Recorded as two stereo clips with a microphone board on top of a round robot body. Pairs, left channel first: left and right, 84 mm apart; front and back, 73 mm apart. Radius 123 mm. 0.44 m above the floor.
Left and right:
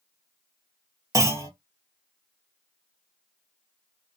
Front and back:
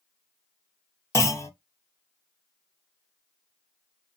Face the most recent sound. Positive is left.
turn(degrees=-40)